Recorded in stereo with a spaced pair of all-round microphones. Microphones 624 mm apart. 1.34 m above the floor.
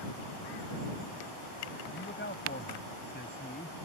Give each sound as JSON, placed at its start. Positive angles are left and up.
{"t": 1.9, "sound": "a man speaking", "side_deg": 15}